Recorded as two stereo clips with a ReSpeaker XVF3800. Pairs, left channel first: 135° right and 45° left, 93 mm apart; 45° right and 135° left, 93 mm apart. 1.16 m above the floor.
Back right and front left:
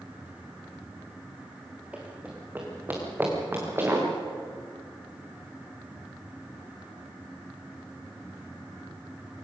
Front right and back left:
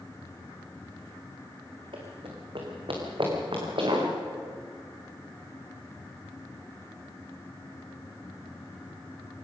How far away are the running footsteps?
About 3 m.